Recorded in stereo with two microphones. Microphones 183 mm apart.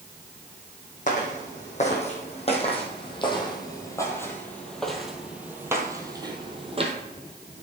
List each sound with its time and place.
1.1 s footsteps: 45° left (ahead or behind), 3 m; by 6.9 s 35° right (ahead or behind), 1.7 m